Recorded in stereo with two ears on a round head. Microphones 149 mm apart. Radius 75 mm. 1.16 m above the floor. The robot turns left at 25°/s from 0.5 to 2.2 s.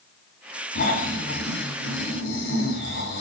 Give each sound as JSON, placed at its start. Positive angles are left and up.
{"t": 0.8, "sound": "snoring", "azimuth_deg": 130, "distance_m": 3.5}